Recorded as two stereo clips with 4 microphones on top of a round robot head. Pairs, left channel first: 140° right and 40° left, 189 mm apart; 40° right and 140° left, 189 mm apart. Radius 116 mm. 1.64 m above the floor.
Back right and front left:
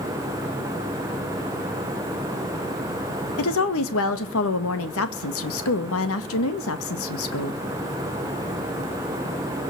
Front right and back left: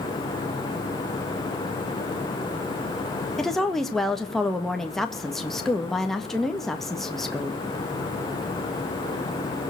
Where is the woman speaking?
130° right, 1.9 m.